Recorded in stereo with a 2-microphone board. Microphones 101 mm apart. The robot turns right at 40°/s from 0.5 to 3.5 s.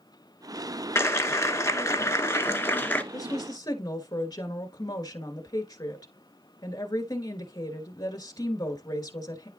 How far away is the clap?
About 1.0 m.